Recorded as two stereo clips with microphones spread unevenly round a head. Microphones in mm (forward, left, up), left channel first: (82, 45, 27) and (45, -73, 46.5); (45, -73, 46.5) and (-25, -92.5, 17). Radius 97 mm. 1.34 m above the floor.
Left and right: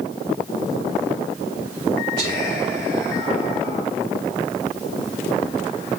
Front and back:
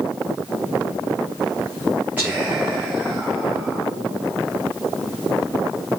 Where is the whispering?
95° right, 4 m.